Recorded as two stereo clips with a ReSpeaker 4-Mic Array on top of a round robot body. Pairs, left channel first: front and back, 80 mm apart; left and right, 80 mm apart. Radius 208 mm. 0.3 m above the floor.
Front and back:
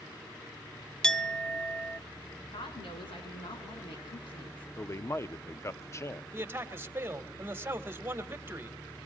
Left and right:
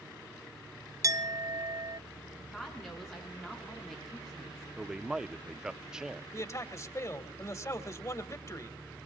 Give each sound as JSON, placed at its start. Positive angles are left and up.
{"t": 1.0, "sound": "a clink", "azimuth_deg": -75, "distance_m": 0.8}
{"t": 2.5, "sound": "a woman speaking", "azimuth_deg": 5, "distance_m": 6.0}
{"t": 4.8, "sound": "a man speaking", "azimuth_deg": -15, "distance_m": 0.9}
{"t": 6.3, "sound": "a man speaking", "azimuth_deg": 125, "distance_m": 2.0}